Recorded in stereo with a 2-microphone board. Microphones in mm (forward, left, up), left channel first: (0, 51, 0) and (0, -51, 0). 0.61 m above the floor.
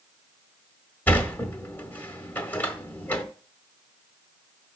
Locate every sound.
1.1 s a sliding door: 20° left (ahead or behind), 1.5 m